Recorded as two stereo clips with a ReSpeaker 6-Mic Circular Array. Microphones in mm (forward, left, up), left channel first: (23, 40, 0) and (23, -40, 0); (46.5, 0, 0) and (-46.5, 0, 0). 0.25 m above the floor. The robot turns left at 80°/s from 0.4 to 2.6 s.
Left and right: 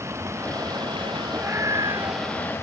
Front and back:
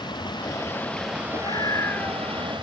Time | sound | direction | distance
0.0 | running water | 35° right | ?
1.3 | a scream | 20° right | ?